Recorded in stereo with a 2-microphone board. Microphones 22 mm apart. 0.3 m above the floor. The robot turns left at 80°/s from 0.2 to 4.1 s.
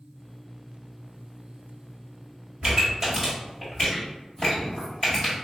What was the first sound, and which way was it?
A pop, 35° right (ahead or behind).